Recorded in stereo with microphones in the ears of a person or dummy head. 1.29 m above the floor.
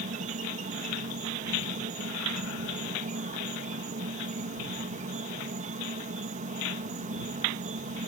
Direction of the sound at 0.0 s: 45° right (ahead or behind).